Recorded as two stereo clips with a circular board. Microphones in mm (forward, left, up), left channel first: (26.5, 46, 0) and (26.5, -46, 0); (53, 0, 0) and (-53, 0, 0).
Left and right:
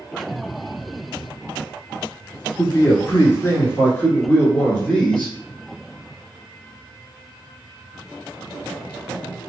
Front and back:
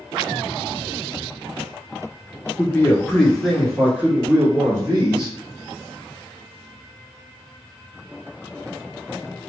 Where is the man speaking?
55° left, 1.6 m; by 5.4 s 160° left, 1.8 m.